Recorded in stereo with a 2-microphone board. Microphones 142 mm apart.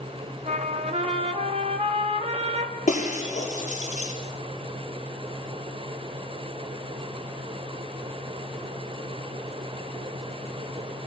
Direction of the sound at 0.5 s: 50° right (ahead or behind).